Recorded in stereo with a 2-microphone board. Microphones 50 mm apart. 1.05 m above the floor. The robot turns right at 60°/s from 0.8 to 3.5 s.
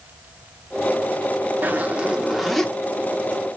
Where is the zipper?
50° right, 0.9 m; by 2.7 s 15° left, 0.9 m.